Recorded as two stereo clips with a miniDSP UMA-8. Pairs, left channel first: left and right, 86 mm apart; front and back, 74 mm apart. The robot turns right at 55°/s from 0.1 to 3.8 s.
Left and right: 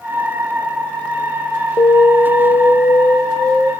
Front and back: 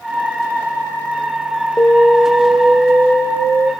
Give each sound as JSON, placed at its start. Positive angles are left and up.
{"t": 1.8, "sound": "an alarm", "azimuth_deg": 60, "distance_m": 1.3}